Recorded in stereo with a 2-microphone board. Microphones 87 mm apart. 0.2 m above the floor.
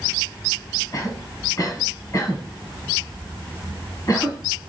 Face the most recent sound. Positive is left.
turn(degrees=40)  # may be behind; listen again after turning